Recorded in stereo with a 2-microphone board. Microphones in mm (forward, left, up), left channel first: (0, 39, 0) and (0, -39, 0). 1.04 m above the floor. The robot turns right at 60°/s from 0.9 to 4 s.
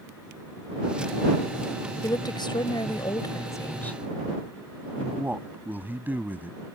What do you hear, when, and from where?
2.0 s a woman speaking: 50° left; by 4.0 s 165° left
5.0 s a man speaking: 25° right (ahead or behind)